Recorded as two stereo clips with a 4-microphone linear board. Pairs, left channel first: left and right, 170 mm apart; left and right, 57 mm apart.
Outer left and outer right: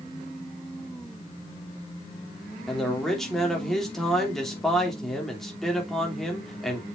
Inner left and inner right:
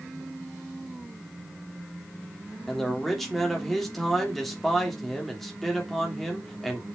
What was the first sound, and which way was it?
A man speaking, 5° left (ahead or behind).